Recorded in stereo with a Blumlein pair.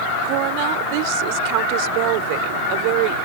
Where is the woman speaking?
45° right.